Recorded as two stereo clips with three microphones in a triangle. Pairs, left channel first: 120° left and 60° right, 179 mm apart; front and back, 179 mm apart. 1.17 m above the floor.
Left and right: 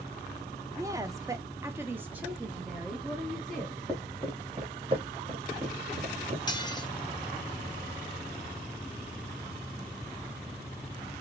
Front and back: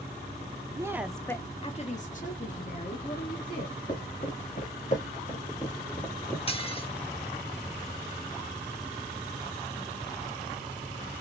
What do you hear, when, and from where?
0.8 s a woman speaking: 120° right, 0.6 m; by 3.8 s 30° left, 1.8 m
3.6 s footsteps: 15° left, 1.9 m; by 6.4 s 80° right, 1.6 m
6.5 s dishes clattering: 55° left, 0.8 m